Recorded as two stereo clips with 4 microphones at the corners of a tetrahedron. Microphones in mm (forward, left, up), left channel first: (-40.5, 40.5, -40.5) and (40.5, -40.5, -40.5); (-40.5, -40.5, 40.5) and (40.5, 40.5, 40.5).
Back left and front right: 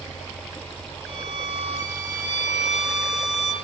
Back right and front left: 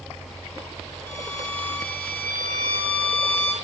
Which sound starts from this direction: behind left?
A violin, at 1.1 s.